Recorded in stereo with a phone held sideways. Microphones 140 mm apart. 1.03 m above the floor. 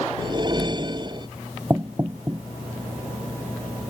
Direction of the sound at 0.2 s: 35° right (ahead or behind).